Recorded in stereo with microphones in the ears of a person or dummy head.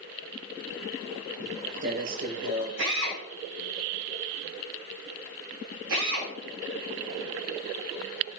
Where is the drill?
75° right (ahead or behind), 7 m.